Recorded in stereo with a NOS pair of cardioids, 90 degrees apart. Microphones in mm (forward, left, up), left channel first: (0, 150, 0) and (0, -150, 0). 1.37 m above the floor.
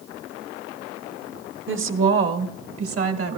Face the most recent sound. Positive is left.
turn(degrees=-50)